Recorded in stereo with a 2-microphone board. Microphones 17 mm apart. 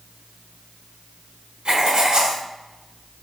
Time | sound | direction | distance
1.6 | writing | 55° right (ahead or behind) | 1.2 m